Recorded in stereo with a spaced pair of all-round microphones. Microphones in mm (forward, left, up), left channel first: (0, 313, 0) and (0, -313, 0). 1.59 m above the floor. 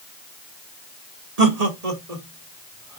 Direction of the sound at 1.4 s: 75° right (ahead or behind).